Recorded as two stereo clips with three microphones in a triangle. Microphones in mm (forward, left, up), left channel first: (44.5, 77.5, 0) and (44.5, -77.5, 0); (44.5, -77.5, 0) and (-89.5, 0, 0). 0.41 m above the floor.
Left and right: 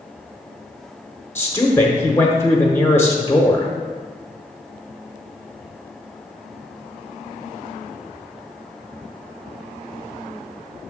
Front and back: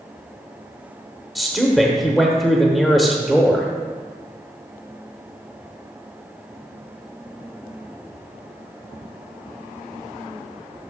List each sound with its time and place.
1.4 s a man speaking: 60° left, 0.8 m